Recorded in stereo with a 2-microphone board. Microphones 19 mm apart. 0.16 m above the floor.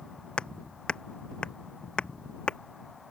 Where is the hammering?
60° left (ahead or behind).